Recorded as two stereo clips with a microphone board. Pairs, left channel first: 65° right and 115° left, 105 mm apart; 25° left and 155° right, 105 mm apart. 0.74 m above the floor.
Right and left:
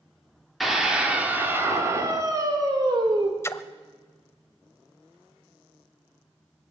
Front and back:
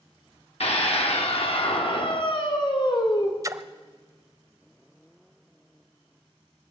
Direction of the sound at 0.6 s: 25° left.